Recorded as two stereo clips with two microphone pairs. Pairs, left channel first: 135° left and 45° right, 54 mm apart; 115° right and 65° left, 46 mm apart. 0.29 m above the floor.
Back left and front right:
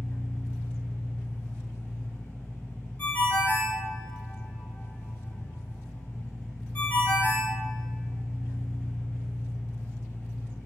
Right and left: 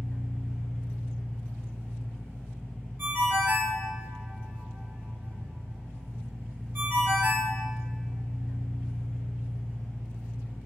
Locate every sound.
0.0 s an engine running: 165° right, 1.4 m
3.0 s a ringtone: 90° left, 0.7 m